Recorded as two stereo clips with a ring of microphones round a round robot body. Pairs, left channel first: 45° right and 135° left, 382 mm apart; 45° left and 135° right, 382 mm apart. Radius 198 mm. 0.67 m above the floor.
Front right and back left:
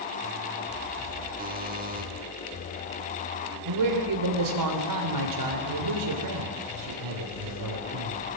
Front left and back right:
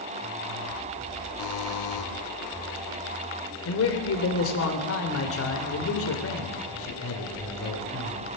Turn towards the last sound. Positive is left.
turn(degrees=100)